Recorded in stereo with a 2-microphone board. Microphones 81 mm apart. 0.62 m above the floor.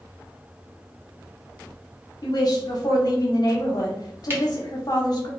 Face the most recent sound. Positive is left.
turn(degrees=-30)  # may be behind; listen again after turning